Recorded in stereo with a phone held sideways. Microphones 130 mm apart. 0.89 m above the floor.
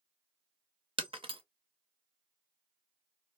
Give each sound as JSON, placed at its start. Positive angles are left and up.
{"t": 1.0, "sound": "breaking glass", "side_deg": -50, "distance_m": 0.7}